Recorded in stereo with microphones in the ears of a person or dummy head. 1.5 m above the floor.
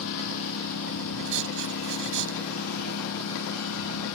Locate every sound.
0.0 s a lawn mower: 80° left
1.2 s writing: 75° right (ahead or behind)